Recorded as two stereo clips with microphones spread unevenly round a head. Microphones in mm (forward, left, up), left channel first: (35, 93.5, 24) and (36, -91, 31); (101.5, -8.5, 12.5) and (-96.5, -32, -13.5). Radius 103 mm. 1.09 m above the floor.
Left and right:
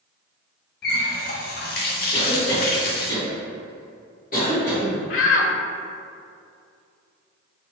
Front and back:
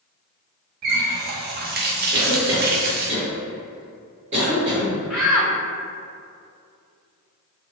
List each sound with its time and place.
0.8 s a running tap: 140° left, 0.5 m
2.1 s a cough: 130° left, 1.9 m
5.1 s a shout: 100° left, 0.7 m